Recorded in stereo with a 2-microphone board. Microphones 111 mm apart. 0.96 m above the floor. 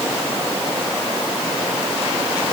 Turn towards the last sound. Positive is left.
No sound to turn to.